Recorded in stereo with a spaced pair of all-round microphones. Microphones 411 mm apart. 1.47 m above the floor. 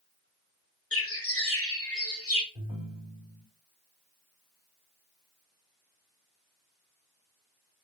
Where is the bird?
35° left (ahead or behind), 1.1 m.